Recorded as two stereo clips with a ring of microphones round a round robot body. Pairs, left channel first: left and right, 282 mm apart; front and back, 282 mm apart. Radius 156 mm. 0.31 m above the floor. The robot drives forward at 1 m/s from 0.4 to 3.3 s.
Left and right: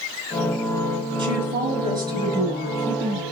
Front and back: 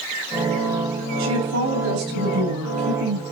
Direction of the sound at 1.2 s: 160° right.